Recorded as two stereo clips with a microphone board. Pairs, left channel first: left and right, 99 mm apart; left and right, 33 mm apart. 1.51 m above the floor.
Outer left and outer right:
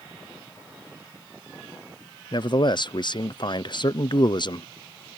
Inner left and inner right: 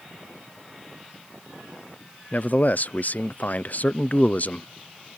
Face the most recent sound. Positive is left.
turn(degrees=50)  # may be behind; listen again after turning